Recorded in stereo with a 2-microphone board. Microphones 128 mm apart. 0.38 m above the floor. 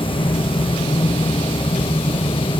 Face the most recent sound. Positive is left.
No sound to turn to.